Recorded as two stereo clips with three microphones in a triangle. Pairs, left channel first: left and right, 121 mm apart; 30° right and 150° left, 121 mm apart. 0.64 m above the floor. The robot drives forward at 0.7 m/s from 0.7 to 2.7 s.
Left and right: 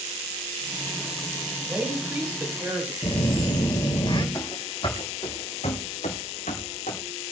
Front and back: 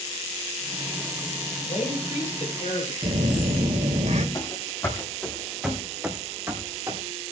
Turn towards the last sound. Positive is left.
turn(degrees=90)